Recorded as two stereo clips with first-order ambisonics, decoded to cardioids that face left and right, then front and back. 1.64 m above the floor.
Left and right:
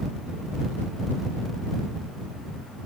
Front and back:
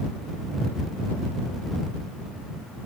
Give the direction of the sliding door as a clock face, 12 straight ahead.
I don't hear a sliding door.